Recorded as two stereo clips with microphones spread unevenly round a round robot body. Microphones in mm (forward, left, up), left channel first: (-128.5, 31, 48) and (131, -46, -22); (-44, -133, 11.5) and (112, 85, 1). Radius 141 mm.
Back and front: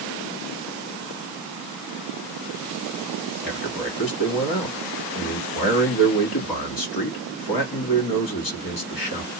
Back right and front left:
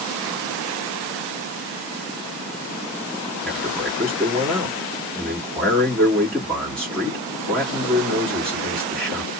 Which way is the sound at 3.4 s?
145° left.